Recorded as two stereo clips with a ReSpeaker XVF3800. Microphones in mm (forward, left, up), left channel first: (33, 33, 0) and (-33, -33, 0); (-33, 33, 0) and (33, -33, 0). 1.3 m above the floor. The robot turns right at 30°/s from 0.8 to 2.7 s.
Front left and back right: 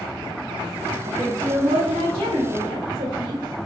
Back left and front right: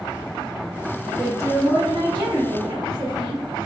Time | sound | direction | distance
1.1 | a woman speaking | 140° right | 1.1 m